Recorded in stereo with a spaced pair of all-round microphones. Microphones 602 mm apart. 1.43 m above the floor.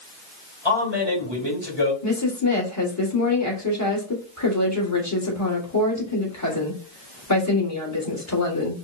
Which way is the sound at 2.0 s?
25° left (ahead or behind).